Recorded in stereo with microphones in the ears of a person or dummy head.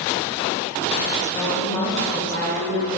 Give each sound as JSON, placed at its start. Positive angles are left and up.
{"t": 1.3, "sound": "a woman speaking", "side_deg": 15, "distance_m": 1.1}